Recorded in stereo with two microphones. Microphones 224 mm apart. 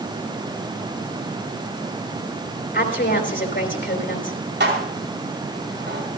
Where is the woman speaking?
55° left (ahead or behind), 3.5 m.